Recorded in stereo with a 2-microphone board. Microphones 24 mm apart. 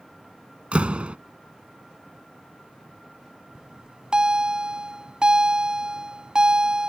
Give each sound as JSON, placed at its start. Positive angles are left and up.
{"t": 0.7, "sound": "a door slam", "side_deg": -55}
{"t": 3.5, "sound": "a bell", "side_deg": -40}